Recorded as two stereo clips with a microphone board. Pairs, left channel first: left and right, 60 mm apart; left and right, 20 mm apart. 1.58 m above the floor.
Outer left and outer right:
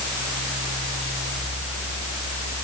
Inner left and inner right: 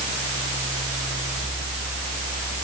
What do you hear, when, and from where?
Only background noise.